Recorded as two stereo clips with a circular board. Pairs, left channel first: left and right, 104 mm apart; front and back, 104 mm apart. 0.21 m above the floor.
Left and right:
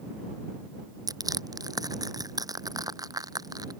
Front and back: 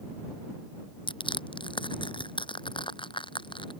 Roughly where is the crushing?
Ahead right.